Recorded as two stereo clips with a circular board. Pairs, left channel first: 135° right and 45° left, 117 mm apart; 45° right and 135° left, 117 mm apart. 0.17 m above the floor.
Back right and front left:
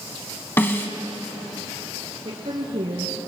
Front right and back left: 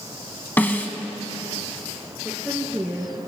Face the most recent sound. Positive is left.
turn(degrees=55)